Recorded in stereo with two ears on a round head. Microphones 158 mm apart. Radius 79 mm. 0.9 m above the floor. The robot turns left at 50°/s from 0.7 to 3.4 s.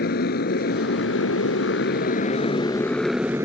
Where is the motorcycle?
120° left; by 3.5 s 15° right.